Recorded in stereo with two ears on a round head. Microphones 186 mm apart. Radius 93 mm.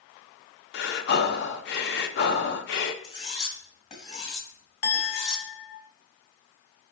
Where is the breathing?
55° left (ahead or behind), 0.6 m.